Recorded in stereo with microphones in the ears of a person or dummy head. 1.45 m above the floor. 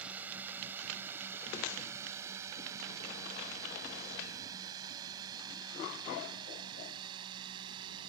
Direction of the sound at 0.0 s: 5° right (ahead or behind).